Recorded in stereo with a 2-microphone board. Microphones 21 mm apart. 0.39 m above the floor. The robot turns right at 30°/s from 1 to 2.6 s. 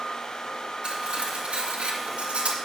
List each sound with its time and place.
0.8 s cutlery clinking: 55° right (ahead or behind), 2 m; by 2.6 s 75° right (ahead or behind), 2 m